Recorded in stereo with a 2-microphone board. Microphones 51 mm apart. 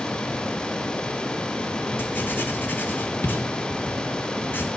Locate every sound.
2.0 s writing: 40° left (ahead or behind), 1.3 m